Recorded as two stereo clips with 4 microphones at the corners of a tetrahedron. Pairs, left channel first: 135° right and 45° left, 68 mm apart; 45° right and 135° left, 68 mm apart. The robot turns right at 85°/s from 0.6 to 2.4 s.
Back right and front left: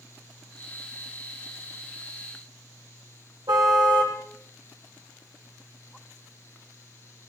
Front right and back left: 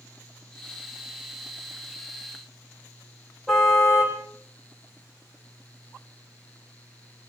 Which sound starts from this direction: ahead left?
A car horn, at 3.5 s.